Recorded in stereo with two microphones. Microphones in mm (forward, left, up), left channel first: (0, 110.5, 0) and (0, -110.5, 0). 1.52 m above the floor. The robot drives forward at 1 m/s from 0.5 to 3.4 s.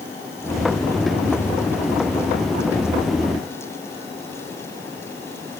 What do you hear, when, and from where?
Only background noise.